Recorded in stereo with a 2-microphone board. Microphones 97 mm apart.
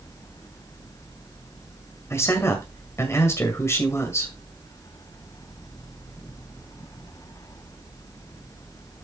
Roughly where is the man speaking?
Left.